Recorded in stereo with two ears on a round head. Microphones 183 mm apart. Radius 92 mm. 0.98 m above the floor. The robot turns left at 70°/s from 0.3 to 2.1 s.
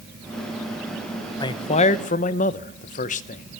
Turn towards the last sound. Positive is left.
turn(degrees=95)